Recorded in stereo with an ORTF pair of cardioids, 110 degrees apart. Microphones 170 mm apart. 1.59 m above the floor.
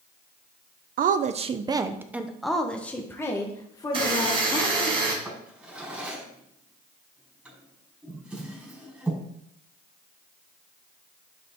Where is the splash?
No splash in this recording.